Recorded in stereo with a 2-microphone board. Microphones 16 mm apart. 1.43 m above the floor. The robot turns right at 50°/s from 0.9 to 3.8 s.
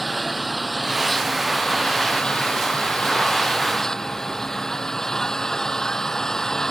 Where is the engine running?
Straight ahead; by 6.7 s 145° left.